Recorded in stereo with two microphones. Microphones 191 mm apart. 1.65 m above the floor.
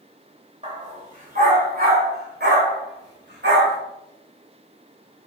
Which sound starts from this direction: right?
A dog barking, at 0.6 s.